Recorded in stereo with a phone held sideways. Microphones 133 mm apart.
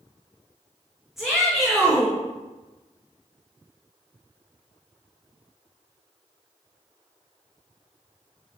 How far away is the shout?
About 1.5 m.